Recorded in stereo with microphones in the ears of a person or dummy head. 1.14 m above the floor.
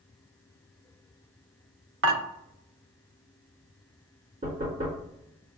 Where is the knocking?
25° right (ahead or behind), 2 m.